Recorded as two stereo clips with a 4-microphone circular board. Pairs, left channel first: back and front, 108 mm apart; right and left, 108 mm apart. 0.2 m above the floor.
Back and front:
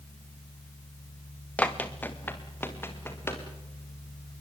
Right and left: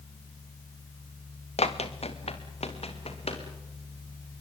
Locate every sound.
1.6 s running footsteps: 100° right, 1.9 m; by 3.4 s 110° right, 4.5 m